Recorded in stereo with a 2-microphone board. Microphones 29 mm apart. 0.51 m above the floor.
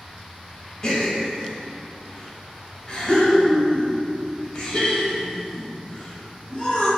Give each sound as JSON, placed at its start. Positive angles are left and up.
{"t": 0.8, "sound": "a gasp", "side_deg": 25, "distance_m": 0.8}